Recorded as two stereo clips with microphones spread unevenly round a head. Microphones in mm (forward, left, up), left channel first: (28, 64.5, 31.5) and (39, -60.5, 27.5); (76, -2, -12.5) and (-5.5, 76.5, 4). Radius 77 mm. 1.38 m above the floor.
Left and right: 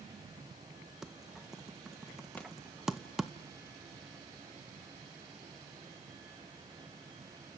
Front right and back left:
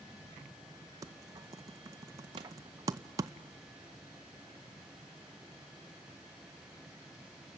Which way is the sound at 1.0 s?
175° right.